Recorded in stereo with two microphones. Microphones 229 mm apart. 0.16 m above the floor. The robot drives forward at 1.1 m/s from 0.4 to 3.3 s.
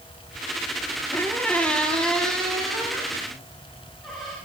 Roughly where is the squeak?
Centre.